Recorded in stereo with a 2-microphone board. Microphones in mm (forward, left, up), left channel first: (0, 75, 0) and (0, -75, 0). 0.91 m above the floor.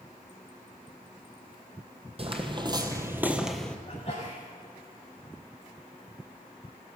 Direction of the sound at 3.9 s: 40° left (ahead or behind).